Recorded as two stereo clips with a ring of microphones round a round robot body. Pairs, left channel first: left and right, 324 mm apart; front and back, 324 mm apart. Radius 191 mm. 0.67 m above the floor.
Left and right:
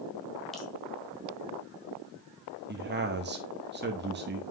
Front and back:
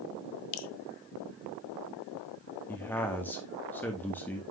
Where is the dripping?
Straight ahead, 0.8 m.